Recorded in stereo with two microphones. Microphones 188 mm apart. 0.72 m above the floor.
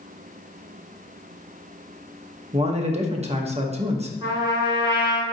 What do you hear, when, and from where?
2.5 s a man speaking: 35° right (ahead or behind), 0.7 m
4.2 s a trumpet: 30° right (ahead or behind), 2 m